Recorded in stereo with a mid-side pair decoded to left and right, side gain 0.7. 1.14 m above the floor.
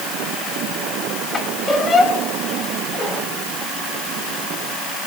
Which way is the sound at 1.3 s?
30° left.